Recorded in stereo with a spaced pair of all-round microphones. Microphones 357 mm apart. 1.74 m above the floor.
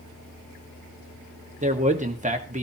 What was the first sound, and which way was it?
A man speaking, 20° right (ahead or behind).